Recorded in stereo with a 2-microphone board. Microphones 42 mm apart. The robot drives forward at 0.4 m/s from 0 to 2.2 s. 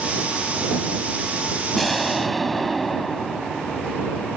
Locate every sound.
1.8 s an explosion: 5° left (ahead or behind)